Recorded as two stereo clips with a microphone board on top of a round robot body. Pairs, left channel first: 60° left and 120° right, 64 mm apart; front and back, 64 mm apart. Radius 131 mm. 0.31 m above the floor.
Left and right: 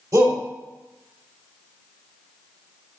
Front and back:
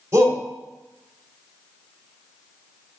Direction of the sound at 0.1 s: 135° right.